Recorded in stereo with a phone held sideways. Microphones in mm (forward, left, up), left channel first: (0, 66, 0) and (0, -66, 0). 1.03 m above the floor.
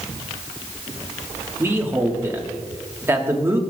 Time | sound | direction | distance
1.6 | a man speaking | 15° right (ahead or behind) | 1.4 m